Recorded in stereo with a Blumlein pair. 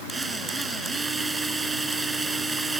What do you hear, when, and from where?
0.1 s a drill: 10° right